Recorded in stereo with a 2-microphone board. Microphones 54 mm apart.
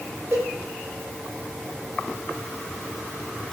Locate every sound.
0.3 s a cowbell: 45° right (ahead or behind), 5 m